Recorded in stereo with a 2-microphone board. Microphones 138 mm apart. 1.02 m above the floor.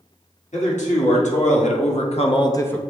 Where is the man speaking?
65° left (ahead or behind), 1.5 m; by 2.8 s 10° left (ahead or behind), 0.5 m.